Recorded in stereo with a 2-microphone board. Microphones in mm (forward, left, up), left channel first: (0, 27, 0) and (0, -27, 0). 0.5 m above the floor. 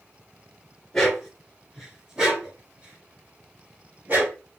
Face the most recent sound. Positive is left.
turn(degrees=-35)  # may be behind; listen again after turning